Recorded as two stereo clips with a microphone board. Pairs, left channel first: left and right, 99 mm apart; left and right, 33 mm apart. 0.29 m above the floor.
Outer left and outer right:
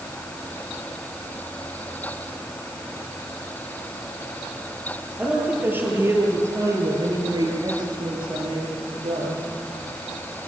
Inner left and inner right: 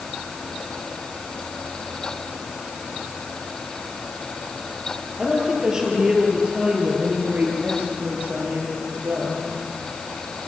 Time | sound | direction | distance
5.2 | a woman speaking | 15° right (ahead or behind) | 7 m